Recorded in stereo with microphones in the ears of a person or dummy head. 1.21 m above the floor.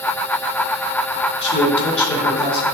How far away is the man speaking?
About 3.5 m.